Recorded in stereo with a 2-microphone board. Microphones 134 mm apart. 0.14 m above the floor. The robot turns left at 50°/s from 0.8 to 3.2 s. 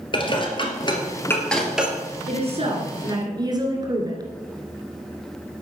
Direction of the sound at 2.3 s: 90° right.